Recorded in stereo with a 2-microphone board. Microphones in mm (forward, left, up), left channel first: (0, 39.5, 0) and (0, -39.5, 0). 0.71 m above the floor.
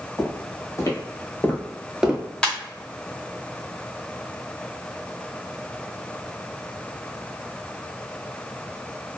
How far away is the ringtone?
About 0.8 m.